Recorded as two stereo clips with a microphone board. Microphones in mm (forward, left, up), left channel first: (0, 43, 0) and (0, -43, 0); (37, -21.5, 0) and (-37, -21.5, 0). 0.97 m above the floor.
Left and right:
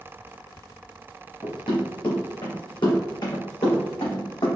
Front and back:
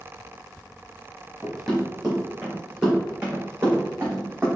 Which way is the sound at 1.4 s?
85° left.